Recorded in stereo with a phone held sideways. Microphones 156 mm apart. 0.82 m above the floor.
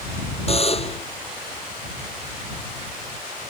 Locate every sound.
0.5 s a buzzer: 40° left (ahead or behind)